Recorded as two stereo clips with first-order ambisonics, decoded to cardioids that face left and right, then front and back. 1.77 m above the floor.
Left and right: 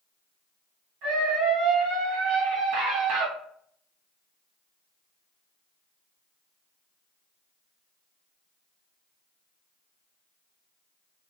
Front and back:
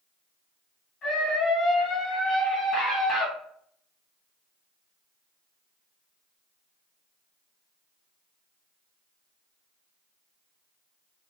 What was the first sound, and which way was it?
A scream, 65° right.